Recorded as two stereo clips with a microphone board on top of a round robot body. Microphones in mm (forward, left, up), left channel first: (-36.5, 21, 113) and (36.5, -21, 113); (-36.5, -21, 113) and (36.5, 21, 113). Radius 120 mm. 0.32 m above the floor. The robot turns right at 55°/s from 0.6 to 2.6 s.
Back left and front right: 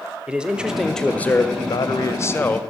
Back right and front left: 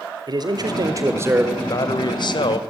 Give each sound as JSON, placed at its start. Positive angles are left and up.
{"t": 0.3, "sound": "a man speaking", "azimuth_deg": 45, "distance_m": 1.5}
{"t": 1.6, "sound": "a man speaking", "azimuth_deg": 165, "distance_m": 2.0}